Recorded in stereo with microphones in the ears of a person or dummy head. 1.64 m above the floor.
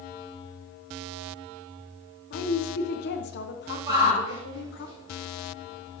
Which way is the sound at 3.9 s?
20° right (ahead or behind).